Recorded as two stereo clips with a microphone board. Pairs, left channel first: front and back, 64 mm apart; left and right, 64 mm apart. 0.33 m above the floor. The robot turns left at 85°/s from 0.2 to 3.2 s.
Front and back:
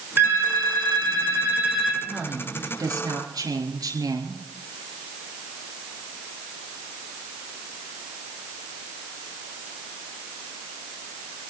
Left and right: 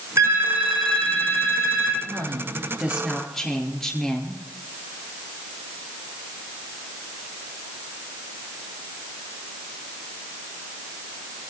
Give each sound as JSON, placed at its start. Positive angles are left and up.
{"t": 0.2, "sound": "a phone ringing", "azimuth_deg": -125, "distance_m": 6.0}
{"t": 2.0, "sound": "a woman speaking", "azimuth_deg": -90, "distance_m": 5.0}